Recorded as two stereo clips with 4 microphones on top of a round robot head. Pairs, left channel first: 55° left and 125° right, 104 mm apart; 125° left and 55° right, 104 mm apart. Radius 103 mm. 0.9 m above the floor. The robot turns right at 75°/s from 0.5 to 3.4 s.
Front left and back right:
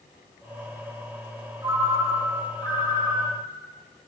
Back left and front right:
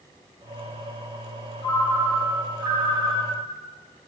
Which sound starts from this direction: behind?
A ringtone, at 1.6 s.